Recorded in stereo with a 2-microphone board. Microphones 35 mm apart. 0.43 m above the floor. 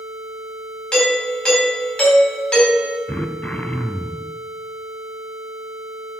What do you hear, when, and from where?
0.9 s a doorbell: 30° left (ahead or behind), 3.5 m
3.1 s throat clearing: 45° left (ahead or behind), 0.6 m